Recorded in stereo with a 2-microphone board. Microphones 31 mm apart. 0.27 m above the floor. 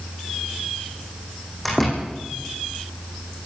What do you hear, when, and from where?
1.6 s a door slam: 10° left (ahead or behind), 9 m